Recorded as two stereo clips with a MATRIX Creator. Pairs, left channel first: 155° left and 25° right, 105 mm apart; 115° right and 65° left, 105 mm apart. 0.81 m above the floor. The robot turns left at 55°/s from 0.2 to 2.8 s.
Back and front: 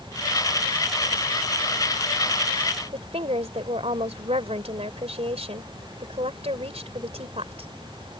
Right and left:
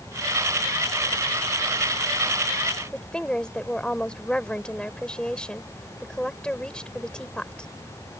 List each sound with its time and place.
2.9 s a woman speaking: 30° right